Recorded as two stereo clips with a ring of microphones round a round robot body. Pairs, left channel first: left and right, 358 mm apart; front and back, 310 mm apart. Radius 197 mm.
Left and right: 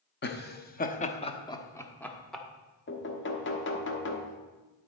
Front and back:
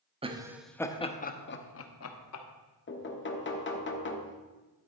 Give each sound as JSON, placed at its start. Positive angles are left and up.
{"t": 0.2, "sound": "laughter", "azimuth_deg": 120, "distance_m": 0.9}
{"t": 2.9, "sound": "knocking", "azimuth_deg": 40, "distance_m": 1.3}